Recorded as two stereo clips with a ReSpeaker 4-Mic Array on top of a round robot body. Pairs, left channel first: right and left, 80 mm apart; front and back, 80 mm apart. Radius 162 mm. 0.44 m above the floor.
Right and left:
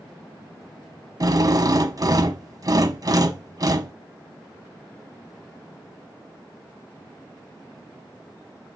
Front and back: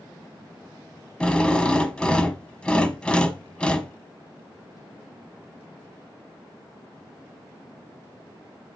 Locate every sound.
1.2 s a drill: 75° left, 1.1 m